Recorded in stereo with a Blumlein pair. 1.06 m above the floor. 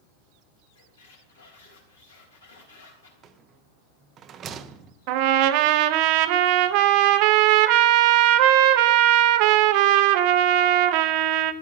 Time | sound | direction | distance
0.8 | a squeak | 70° left | 3.5 m
3.2 | a rattle | 25° right | 0.8 m
5.1 | a trumpet | 45° right | 0.8 m